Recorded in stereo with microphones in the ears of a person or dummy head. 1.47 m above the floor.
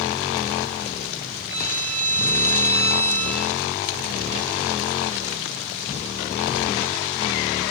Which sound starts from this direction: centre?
A violin, at 1.5 s.